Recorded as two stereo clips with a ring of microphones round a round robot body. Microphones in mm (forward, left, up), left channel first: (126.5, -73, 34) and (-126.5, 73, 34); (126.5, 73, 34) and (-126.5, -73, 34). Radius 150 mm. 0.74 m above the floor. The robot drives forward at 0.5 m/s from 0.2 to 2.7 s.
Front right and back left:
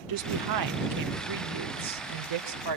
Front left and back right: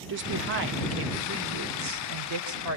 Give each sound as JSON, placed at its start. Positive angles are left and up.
{"t": 0.1, "sound": "a woman speaking", "azimuth_deg": 160, "distance_m": 1.7}